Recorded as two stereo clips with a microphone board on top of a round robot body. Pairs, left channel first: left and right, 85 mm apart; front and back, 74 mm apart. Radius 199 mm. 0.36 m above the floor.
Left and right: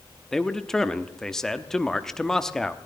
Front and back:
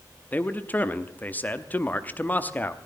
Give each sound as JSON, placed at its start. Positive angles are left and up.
{"t": 0.3, "sound": "a man speaking", "azimuth_deg": 15, "distance_m": 1.2}